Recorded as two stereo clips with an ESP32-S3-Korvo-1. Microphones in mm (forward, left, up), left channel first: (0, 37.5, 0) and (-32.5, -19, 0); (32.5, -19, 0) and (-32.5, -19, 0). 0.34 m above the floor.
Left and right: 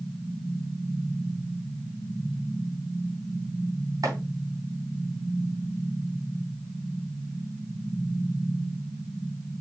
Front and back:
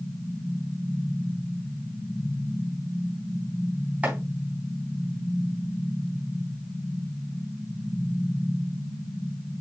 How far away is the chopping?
About 3.5 m.